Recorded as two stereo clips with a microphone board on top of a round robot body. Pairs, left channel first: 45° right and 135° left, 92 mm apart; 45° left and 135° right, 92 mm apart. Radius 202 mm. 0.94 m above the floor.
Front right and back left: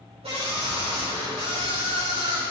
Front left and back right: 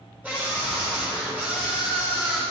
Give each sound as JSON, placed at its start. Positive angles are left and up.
{"t": 0.2, "sound": "a scream", "azimuth_deg": 150, "distance_m": 4.0}